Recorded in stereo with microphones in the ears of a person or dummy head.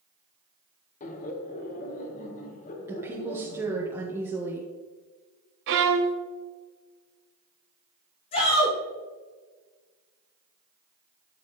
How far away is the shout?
About 2.5 m.